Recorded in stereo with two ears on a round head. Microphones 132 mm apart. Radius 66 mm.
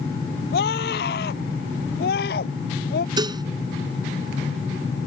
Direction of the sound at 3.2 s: 30° right (ahead or behind).